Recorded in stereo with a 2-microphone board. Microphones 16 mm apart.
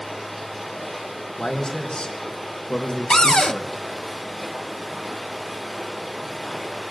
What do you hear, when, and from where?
0.0 s running water: 5° right (ahead or behind), 7.5 m
1.4 s a man speaking: 75° left (ahead or behind), 3.5 m
3.1 s a cupboard door: 50° left (ahead or behind), 0.5 m